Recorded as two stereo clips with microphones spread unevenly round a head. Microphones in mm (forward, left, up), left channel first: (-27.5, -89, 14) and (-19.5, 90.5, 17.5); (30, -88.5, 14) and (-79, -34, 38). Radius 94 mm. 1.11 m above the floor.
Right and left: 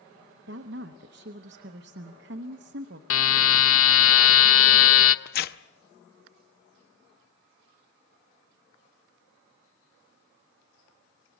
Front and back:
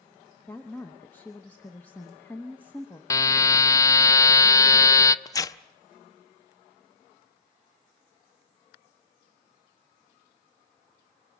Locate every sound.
0.5 s a woman speaking: 55° left, 0.8 m
3.1 s a buzzer: 95° right, 0.6 m
5.2 s tearing paper: 90° right, 0.6 m